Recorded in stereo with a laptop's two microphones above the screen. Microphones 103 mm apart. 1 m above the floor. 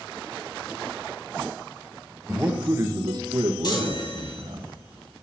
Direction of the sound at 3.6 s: 45° left (ahead or behind).